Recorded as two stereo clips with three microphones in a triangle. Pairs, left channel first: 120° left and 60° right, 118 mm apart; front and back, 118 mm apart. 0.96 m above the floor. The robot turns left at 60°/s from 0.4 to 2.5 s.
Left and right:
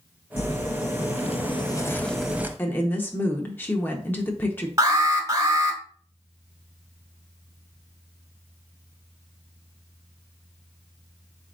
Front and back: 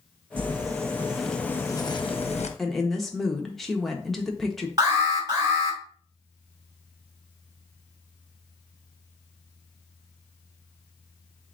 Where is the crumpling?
140° left, 0.6 m; by 2.5 s 15° left, 0.6 m.